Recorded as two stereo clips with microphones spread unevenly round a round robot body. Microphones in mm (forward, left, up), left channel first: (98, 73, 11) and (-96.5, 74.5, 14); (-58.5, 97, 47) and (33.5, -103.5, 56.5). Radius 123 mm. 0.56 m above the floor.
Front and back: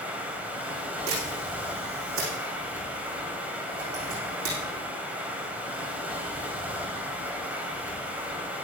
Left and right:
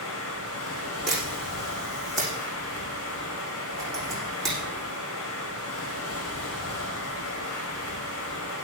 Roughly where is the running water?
Left.